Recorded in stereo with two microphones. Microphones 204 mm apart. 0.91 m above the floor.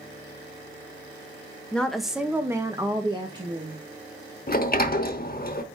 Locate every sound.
1.7 s a woman speaking: 5° left (ahead or behind), 1.1 m; by 3.8 s 20° right (ahead or behind), 1.7 m
4.5 s a sliding door: 45° left (ahead or behind), 0.8 m